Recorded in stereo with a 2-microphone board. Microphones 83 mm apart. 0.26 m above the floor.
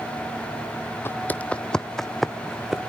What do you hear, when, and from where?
1.1 s footsteps: 30° left (ahead or behind), 0.7 m; by 2.8 s 5° right (ahead or behind), 1.4 m